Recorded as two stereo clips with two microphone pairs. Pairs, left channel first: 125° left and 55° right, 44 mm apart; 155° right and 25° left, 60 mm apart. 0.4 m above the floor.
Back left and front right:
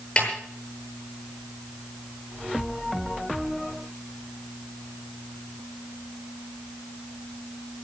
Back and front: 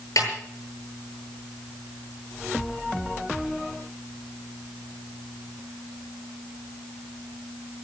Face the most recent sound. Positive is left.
turn(degrees=-170)